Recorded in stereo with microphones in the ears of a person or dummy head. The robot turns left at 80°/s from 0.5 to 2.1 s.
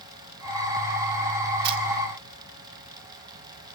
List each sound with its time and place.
1.6 s a camera shutter: 55° right (ahead or behind), 2 m; by 1.8 s 45° right (ahead or behind), 2 m